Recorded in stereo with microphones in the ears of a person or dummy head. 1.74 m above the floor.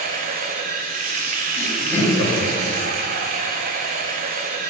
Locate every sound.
0.0 s running water: 40° right (ahead or behind), 0.8 m
1.6 s laughter: 40° left (ahead or behind), 3 m